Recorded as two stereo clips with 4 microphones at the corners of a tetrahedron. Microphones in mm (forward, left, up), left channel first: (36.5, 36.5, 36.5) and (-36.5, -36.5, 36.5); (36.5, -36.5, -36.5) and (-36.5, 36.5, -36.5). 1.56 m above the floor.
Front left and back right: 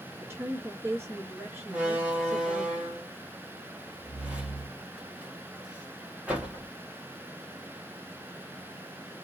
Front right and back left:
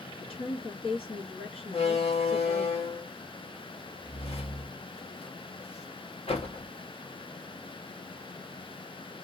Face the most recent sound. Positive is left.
turn(degrees=-55)